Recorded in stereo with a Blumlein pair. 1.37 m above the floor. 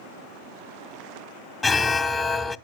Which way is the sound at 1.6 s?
10° left.